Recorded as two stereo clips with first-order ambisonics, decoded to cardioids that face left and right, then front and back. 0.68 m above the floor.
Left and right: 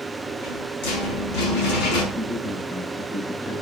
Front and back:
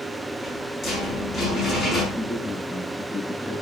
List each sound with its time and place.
0.3 s a rattle: 80° left, 5 m
2.1 s a man speaking: 95° left, 6.5 m